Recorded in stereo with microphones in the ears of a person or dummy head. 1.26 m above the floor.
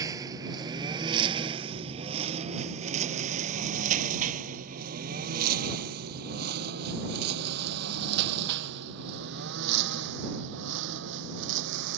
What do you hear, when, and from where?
0.0 s a lawn mower: 15° right (ahead or behind); by 12.0 s 65° right (ahead or behind)